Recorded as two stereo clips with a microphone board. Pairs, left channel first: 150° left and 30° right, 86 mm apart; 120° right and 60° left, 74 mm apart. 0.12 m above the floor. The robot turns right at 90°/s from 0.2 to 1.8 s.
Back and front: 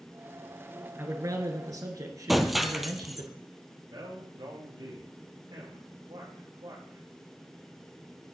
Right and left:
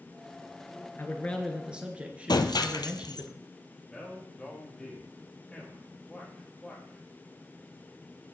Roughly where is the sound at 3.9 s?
Ahead right.